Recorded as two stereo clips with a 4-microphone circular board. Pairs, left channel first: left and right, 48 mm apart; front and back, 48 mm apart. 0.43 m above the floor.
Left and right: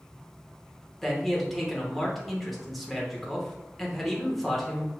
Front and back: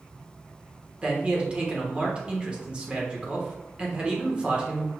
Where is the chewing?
No chewing in this recording.